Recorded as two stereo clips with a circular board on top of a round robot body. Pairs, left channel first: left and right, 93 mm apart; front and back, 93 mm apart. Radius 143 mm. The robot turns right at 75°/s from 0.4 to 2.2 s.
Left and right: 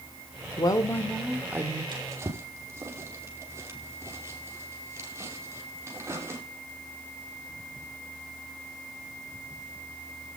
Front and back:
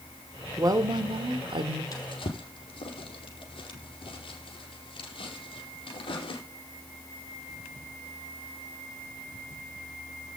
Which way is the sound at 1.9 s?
50° right.